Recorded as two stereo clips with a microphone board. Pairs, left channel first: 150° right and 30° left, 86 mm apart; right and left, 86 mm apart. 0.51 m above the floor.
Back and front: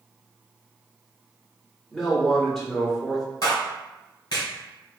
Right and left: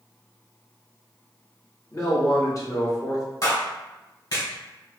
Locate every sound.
1.9 s a man speaking: 65° right, 1.4 m
3.4 s a clap: 120° right, 1.7 m